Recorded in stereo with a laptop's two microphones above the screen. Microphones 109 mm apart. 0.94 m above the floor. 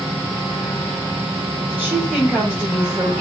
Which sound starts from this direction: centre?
A woman speaking, at 1.7 s.